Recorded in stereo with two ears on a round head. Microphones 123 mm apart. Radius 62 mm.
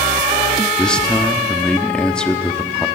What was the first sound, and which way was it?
A man speaking, 5° left (ahead or behind).